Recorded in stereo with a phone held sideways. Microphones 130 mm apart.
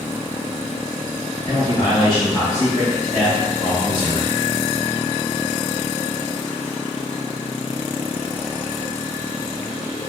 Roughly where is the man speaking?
Left.